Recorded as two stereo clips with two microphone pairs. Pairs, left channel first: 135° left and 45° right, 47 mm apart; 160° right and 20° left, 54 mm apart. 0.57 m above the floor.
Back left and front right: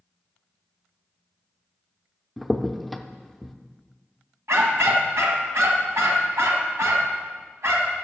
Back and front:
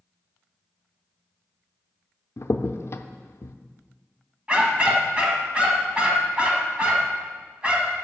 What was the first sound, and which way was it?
A crack, 135° right.